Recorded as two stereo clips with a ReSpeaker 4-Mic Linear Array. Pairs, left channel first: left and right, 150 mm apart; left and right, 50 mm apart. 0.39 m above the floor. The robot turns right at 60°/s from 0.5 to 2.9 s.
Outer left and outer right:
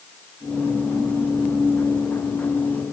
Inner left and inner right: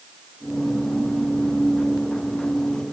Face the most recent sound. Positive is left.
No sound to turn to.